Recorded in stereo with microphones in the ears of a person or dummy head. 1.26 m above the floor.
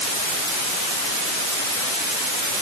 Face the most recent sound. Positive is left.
No sound to turn to.